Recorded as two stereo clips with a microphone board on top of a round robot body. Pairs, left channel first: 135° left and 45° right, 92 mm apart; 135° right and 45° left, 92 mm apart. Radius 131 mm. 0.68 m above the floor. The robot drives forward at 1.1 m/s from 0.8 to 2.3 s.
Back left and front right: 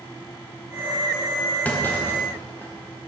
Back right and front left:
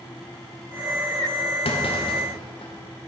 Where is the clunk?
150° right, 1.9 m; by 2.7 s 160° right, 2.5 m.